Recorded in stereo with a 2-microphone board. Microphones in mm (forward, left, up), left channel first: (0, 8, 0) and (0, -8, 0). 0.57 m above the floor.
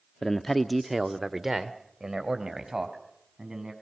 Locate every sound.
0.2 s a man speaking: 35° left (ahead or behind), 0.8 m; by 3.7 s 40° right (ahead or behind), 4.5 m